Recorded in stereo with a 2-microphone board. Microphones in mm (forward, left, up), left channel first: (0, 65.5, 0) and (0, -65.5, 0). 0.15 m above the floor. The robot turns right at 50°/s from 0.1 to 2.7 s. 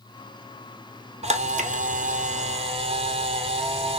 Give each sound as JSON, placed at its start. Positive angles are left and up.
{"t": 1.2, "sound": "a camera shutter", "azimuth_deg": -120, "distance_m": 0.6}